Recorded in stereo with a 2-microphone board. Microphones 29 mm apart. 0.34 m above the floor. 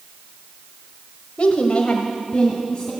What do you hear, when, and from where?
1.4 s a woman speaking: 45° left (ahead or behind), 1.2 m; by 2.9 s 20° left (ahead or behind), 2 m